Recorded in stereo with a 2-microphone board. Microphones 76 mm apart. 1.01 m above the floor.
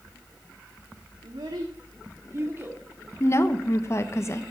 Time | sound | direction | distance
1.2 | a child speaking | 85° right | 1.7 m
3.2 | a woman speaking | 40° left (ahead or behind) | 1.1 m